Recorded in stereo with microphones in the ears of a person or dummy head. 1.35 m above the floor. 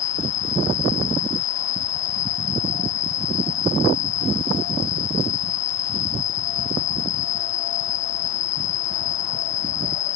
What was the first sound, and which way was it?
An insect, 50° left (ahead or behind).